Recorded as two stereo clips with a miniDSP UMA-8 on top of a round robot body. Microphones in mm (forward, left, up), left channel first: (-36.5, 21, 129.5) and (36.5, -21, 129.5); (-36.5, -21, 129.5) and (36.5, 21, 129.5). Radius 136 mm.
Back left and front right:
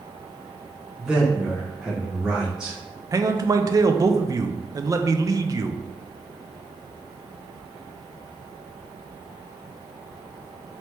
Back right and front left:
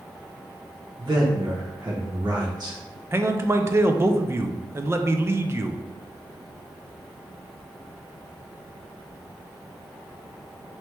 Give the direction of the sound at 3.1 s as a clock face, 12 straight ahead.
12 o'clock.